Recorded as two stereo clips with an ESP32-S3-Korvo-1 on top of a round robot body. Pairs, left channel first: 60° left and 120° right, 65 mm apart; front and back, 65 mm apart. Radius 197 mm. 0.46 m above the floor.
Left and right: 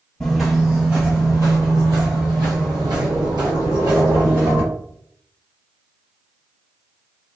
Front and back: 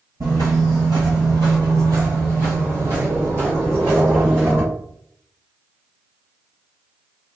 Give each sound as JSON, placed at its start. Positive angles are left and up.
{"t": 0.2, "sound": "footsteps", "azimuth_deg": 145, "distance_m": 0.8}